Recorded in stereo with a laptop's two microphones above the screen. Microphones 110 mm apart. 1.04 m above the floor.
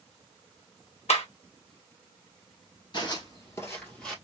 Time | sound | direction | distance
1.1 | a clap | 75° left (ahead or behind) | 1.4 m
2.9 | footsteps | 45° left (ahead or behind) | 1.5 m